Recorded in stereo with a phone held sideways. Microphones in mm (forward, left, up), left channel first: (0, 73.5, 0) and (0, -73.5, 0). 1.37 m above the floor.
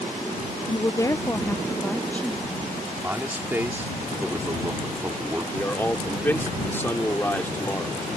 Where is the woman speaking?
35° left (ahead or behind); by 2.8 s 5° left (ahead or behind).